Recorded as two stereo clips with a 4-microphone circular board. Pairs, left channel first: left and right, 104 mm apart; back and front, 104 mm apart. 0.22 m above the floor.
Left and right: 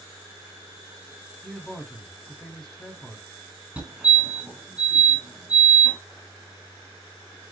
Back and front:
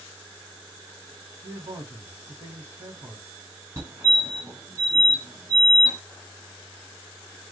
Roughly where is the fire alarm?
Ahead right.